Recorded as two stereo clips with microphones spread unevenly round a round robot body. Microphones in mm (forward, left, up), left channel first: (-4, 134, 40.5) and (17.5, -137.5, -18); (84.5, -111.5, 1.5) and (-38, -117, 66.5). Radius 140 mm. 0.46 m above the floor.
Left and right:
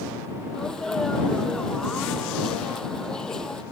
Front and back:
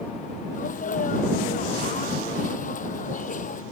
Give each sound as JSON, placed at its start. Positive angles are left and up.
{"t": 0.5, "sound": "a sneeze", "azimuth_deg": 5}